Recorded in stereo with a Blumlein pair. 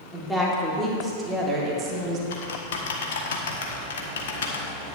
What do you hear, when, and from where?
0.1 s a woman speaking: straight ahead, 2.5 m; by 2.2 s 30° right, 1.7 m
2.3 s typing on a keyboard: 60° left, 1.1 m